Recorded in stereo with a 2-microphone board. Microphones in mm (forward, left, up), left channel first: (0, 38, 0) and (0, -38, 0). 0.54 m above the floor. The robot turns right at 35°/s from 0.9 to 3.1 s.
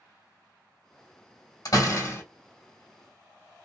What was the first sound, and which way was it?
A door slam, 55° left (ahead or behind).